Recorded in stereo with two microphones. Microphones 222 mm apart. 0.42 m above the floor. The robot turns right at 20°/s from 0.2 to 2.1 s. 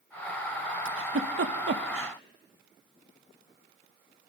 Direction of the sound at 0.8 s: 70° right (ahead or behind).